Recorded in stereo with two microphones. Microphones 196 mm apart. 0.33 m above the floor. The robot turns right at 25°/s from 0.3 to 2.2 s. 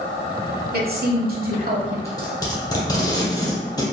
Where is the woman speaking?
95° right, 1.2 m; by 1.9 s 65° right, 1.2 m.